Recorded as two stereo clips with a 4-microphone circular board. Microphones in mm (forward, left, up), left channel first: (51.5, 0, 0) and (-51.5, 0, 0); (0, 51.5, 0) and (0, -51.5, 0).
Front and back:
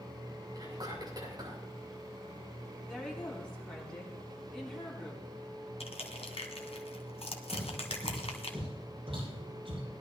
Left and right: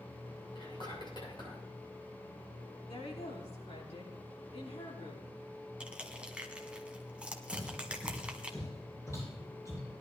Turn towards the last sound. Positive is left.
turn(degrees=150)